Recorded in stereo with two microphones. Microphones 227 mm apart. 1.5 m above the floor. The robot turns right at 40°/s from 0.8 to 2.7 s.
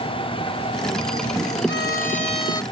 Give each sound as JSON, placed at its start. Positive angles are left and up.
{"t": 1.7, "sound": "a violin", "azimuth_deg": 125}